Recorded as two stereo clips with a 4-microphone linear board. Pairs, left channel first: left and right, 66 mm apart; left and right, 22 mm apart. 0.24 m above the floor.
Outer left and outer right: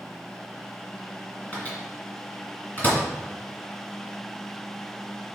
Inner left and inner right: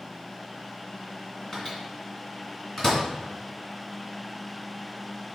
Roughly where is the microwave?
Left.